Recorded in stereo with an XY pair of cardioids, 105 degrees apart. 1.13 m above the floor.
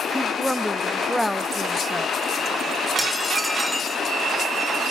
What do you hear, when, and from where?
0.1 s a woman speaking: straight ahead, 1.4 m
3.0 s dishes clattering: 10° right, 2 m